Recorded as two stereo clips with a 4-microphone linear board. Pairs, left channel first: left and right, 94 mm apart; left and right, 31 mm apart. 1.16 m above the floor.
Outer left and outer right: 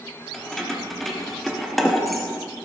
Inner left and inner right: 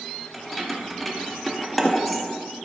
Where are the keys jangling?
Centre (ahead or behind), 2 m.